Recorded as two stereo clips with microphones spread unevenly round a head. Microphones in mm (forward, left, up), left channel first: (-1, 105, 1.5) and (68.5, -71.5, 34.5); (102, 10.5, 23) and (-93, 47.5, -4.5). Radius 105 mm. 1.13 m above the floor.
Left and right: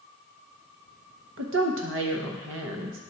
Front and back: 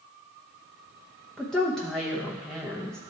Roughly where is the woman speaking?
Right.